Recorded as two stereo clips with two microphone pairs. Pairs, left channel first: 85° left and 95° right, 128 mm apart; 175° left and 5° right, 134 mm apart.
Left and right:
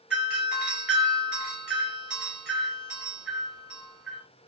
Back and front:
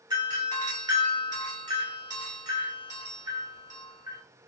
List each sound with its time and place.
0.1 s a doorbell: 15° right, 1.8 m